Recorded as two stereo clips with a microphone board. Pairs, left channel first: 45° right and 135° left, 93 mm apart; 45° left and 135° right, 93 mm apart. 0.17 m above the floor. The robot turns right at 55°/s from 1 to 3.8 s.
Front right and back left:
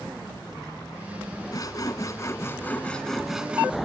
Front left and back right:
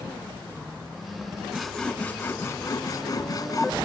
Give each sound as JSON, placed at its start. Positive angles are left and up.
{"t": 1.5, "sound": "sawing", "azimuth_deg": -50}